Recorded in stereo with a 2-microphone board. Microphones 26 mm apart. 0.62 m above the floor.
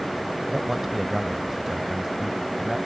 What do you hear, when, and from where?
0.5 s a man speaking: 10° right (ahead or behind); by 2.8 s 15° right (ahead or behind)